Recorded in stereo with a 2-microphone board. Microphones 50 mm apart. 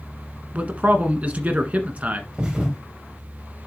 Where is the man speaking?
30° right (ahead or behind), 1.4 m.